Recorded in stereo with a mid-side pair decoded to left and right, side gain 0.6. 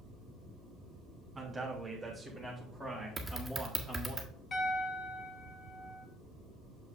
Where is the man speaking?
10° right, 2.5 m; by 4.2 s 30° left, 2 m.